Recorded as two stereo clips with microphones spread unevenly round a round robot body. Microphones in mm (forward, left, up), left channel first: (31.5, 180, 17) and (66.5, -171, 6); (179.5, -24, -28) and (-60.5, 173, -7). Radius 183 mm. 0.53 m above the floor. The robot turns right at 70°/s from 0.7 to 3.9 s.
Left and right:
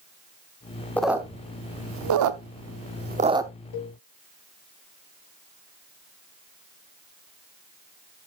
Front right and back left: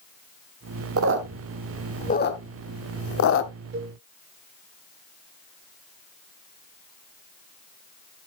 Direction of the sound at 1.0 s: Straight behind.